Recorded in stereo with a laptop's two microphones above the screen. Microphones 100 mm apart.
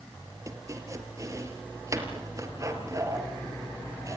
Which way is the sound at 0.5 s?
30° right (ahead or behind).